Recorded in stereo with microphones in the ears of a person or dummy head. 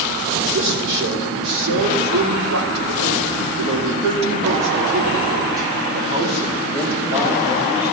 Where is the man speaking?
65° right (ahead or behind), 3.5 m; by 7.9 s 5° right (ahead or behind), 3 m.